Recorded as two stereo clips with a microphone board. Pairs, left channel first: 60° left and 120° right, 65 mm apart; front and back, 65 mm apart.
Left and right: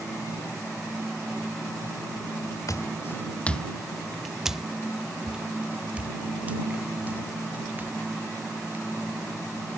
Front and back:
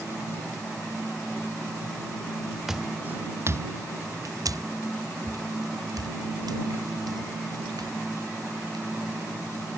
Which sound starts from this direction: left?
Footsteps, at 2.7 s.